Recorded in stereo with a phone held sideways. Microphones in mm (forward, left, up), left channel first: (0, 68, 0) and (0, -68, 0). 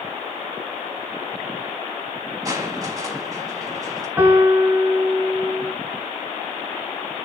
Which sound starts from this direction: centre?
A piano, at 4.2 s.